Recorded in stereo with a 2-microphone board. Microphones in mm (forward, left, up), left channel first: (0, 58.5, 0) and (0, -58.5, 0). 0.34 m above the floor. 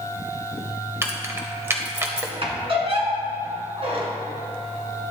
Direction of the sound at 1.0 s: 20° right (ahead or behind).